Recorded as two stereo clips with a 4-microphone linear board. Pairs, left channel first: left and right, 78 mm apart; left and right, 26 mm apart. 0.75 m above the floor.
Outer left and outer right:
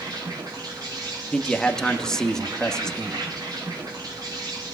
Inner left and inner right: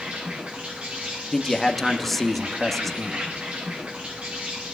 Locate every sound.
0.0 s an insect: 55° right (ahead or behind), 8 m
1.3 s a man speaking: 10° left (ahead or behind), 1.3 m